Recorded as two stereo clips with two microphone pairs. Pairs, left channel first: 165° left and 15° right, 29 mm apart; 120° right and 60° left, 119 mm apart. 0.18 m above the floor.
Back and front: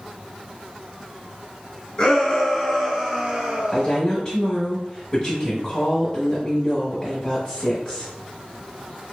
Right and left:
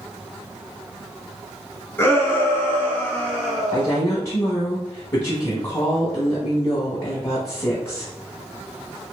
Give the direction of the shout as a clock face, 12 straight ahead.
6 o'clock.